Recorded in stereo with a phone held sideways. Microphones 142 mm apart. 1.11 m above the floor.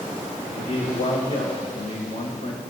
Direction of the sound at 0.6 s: 80° left.